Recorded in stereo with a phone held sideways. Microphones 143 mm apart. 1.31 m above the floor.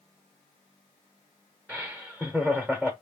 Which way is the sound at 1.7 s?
5° right (ahead or behind).